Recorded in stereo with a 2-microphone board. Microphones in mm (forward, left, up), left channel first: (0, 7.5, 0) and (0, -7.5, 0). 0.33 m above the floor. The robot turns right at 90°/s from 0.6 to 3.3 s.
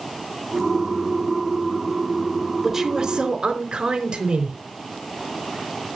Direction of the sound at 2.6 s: 160° right.